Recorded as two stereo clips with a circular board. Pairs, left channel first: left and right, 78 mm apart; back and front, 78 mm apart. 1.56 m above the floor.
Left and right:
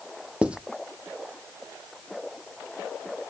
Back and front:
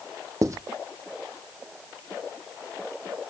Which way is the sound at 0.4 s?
20° right.